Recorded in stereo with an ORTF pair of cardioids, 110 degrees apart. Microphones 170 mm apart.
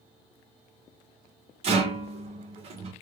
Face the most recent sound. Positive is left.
turn(degrees=-35)